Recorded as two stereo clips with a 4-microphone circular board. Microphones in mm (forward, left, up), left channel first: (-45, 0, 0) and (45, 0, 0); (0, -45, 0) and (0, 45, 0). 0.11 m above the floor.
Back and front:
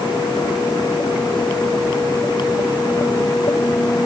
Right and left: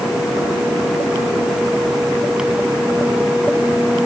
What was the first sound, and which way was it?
Only background noise.